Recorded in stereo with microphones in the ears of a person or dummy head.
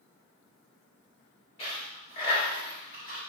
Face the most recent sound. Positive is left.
turn(degrees=35)  # may be behind; listen again after turning